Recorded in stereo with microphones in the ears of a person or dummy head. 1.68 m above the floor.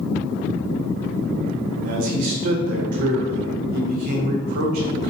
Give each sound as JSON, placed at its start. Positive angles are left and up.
{"t": 1.8, "sound": "a man speaking", "side_deg": -55, "distance_m": 0.6}